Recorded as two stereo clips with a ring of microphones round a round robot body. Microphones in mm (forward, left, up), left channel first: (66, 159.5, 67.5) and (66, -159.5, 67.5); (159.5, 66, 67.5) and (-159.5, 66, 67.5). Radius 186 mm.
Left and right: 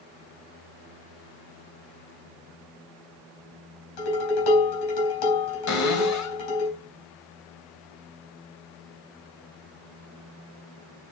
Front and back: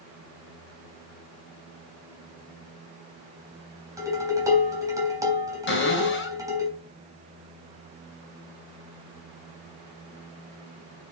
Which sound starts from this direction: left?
Dishes clattering, at 4.0 s.